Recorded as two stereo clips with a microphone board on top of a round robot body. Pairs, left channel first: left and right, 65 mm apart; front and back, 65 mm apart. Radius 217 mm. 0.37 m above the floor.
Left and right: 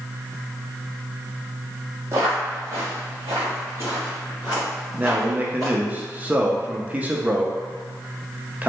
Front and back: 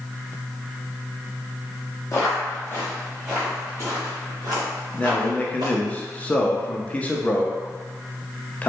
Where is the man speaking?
50° right, 0.8 m.